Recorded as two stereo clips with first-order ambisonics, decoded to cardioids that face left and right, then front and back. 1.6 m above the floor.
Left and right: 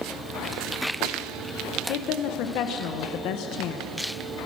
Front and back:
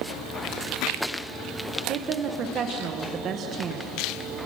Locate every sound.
1.9 s a woman speaking: 125° left, 1.5 m